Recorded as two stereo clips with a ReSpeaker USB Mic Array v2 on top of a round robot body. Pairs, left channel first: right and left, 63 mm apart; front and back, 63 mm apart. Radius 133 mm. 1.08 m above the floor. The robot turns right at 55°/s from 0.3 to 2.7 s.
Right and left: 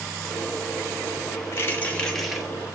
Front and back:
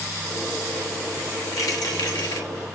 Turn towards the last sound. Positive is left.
turn(degrees=25)